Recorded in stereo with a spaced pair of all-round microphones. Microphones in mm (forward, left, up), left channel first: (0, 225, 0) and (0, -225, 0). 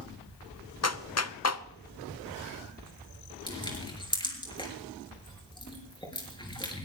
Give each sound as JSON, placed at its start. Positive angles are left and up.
{"t": 0.8, "sound": "a clap", "side_deg": 35, "distance_m": 0.7}
{"t": 3.5, "sound": "crushing", "side_deg": 10, "distance_m": 5.5}